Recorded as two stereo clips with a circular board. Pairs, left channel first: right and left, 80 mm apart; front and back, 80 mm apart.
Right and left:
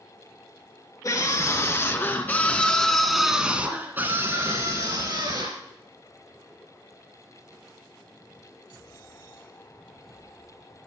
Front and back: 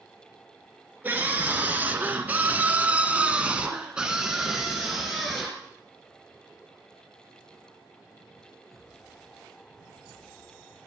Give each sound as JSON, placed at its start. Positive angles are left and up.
{"t": 1.0, "sound": "a scream", "azimuth_deg": -120, "distance_m": 2.0}